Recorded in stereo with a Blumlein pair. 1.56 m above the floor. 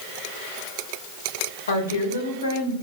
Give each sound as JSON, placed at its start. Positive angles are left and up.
{"t": 1.7, "sound": "a woman speaking", "azimuth_deg": 70, "distance_m": 2.0}